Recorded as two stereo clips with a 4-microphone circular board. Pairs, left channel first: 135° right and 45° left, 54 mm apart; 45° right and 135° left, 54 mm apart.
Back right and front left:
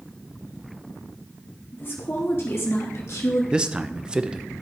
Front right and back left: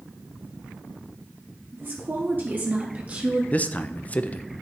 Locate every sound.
1.7 s a woman speaking: straight behind, 2.5 m; by 3.4 s 160° right, 1.6 m
3.5 s a man speaking: 15° right, 0.5 m